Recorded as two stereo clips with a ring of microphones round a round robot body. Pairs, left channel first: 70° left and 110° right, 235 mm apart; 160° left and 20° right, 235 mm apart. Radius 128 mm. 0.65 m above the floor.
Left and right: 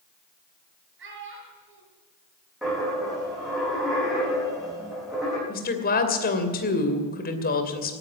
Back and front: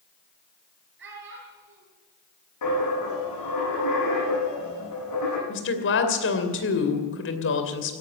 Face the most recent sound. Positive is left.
turn(degrees=120)